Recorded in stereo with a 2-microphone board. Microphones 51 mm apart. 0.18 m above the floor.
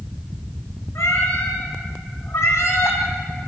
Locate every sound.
0.9 s a cat meowing: 70° left (ahead or behind), 7 m